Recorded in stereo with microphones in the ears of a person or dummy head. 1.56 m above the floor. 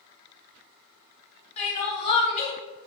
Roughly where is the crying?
Left.